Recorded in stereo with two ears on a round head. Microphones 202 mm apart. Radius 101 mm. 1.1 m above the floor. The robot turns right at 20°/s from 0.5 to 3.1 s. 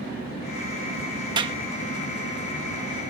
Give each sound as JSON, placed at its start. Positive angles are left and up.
{"t": 1.4, "sound": "a clap", "side_deg": -20}